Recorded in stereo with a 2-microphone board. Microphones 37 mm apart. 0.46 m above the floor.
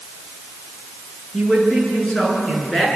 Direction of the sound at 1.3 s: 15° left (ahead or behind).